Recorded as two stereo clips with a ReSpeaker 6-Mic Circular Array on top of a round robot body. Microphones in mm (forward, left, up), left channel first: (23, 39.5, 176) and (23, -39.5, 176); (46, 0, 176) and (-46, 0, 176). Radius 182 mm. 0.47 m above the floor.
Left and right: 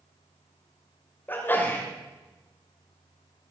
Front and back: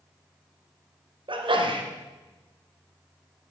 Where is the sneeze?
155° left, 2.5 m.